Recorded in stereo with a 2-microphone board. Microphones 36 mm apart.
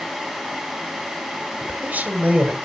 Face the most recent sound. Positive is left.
turn(degrees=-55)  # may be behind; listen again after turning